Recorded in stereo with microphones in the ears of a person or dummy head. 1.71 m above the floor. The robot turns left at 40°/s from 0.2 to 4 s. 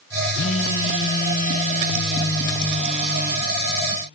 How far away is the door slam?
I don't hear a door slam.